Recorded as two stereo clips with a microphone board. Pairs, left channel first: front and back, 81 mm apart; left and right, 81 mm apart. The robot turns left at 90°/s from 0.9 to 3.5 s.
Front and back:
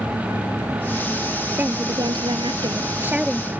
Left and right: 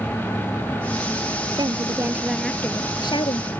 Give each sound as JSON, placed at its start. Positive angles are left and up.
{"t": 1.6, "sound": "a woman speaking", "azimuth_deg": -110}